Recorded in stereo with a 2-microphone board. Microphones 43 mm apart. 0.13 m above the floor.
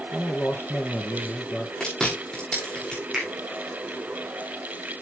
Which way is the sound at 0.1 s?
50° left (ahead or behind).